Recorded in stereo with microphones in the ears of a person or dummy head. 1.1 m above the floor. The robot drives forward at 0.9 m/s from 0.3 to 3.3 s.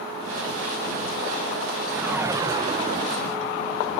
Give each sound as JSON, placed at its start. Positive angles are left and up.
{"t": 1.9, "sound": "a whoosh", "side_deg": -10}